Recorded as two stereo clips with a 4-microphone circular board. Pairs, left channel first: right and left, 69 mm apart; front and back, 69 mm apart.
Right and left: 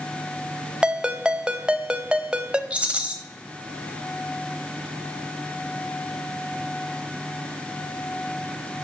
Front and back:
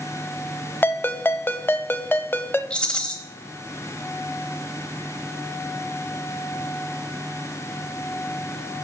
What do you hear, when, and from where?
0.8 s a ringtone: 25° left, 0.5 m
2.7 s a rattle: 55° left, 1.1 m